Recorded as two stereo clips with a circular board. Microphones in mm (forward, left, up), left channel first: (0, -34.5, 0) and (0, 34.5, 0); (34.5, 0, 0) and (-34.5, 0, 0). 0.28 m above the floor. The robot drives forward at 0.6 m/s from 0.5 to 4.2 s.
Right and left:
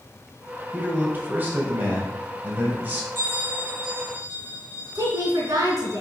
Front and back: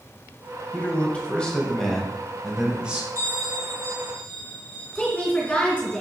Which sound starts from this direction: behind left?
A bell, at 3.1 s.